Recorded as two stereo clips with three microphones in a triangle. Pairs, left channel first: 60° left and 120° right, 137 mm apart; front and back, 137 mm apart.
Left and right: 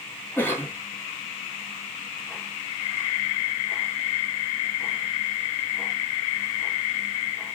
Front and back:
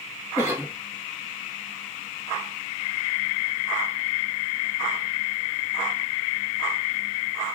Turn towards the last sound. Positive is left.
turn(degrees=120)